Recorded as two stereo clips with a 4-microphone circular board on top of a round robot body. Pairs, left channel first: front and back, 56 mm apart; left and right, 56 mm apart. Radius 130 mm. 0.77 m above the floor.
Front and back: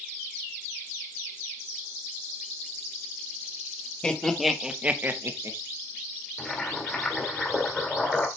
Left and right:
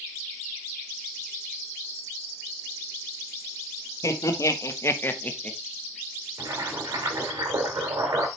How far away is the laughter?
About 2 m.